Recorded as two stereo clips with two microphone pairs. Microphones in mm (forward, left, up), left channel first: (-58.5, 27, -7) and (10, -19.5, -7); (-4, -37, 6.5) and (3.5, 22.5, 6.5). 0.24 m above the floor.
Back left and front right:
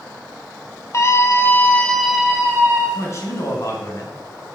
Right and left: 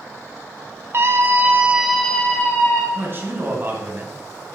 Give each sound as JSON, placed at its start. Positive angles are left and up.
{"t": 0.9, "sound": "a scream", "azimuth_deg": 105, "distance_m": 1.6}
{"t": 3.0, "sound": "a man speaking", "azimuth_deg": 110, "distance_m": 2.0}